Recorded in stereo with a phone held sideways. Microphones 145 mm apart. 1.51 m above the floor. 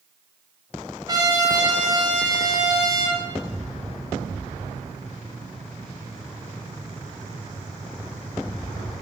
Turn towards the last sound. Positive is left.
turn(degrees=-25)  # may be behind; listen again after turning